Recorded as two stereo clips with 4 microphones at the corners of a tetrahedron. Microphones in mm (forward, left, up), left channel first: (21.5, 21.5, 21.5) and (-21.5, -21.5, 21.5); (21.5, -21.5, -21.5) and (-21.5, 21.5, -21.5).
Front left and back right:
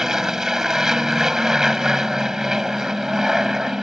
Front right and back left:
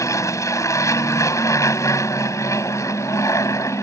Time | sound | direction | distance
0.0 | an aircraft | 55° right | ?